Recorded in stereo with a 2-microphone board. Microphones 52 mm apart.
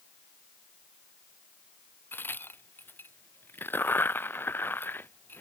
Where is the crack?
45° left (ahead or behind).